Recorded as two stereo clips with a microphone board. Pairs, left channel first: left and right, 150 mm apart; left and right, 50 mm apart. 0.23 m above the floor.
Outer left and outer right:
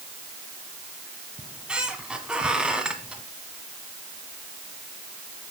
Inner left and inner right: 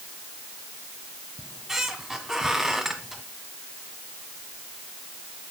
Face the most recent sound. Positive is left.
turn(degrees=-5)  # may be behind; listen again after turning